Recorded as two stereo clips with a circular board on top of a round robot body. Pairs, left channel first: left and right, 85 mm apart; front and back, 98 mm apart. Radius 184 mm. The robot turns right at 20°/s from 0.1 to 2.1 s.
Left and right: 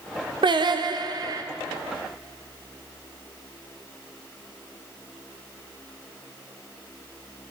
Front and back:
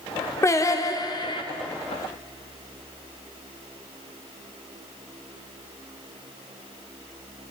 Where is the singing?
60° right, 0.6 m; by 1.4 s 40° right, 0.6 m.